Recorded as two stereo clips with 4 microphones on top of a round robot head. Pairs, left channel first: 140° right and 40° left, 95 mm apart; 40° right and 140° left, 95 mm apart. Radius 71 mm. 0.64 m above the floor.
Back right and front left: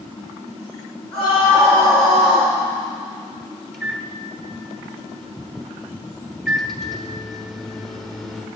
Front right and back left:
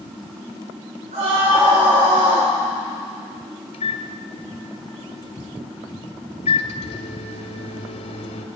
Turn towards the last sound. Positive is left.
turn(degrees=-50)